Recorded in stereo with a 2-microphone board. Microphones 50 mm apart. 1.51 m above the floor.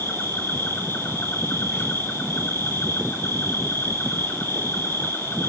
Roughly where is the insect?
Left.